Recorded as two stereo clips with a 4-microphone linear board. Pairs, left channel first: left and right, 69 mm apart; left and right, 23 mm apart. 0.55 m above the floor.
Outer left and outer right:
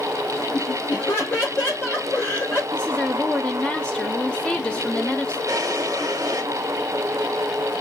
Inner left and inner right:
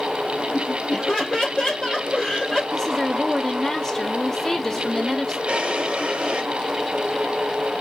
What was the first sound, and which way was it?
Laughter, 35° left (ahead or behind).